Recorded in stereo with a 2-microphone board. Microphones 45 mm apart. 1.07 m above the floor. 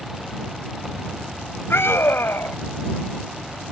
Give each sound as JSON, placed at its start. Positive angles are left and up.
{"t": 1.7, "sound": "a scream", "side_deg": 70}